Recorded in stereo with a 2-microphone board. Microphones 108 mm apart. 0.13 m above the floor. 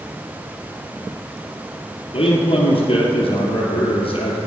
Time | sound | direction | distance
2.1 | a man speaking | 60° left (ahead or behind) | 2 m